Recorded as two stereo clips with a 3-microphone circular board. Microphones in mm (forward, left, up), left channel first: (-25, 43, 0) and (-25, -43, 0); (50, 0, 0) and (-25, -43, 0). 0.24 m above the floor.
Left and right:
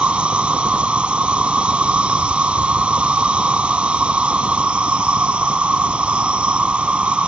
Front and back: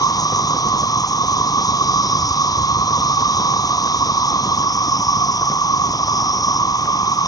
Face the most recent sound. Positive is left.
turn(degrees=-15)